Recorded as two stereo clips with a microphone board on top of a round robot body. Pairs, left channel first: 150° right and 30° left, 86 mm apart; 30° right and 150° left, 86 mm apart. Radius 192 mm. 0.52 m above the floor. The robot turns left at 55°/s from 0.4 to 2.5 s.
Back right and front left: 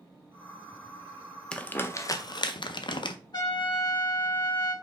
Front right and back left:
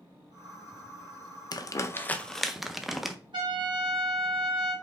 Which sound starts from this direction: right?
Crumpling, at 1.5 s.